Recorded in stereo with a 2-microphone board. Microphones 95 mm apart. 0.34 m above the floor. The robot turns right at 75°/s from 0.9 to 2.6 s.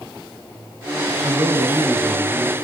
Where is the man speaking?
70° right, 6 m; by 2.6 s 35° left, 6 m.